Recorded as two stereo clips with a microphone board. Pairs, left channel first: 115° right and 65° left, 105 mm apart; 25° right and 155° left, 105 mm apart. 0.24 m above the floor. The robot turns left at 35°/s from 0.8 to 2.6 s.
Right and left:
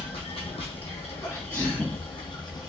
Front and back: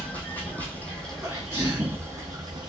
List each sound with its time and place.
0.0 s running water: 95° right, 0.8 m; by 2.7 s 160° right, 0.8 m
1.2 s a sneeze: 155° right, 1.5 m; by 2.0 s 175° left, 1.5 m